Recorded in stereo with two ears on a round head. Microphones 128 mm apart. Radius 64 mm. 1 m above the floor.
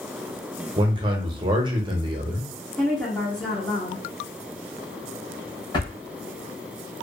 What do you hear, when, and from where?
0.8 s a man speaking: 35° right (ahead or behind), 0.7 m
2.8 s a woman speaking: 5° left (ahead or behind), 0.7 m
5.7 s a drawer: 35° left (ahead or behind), 0.9 m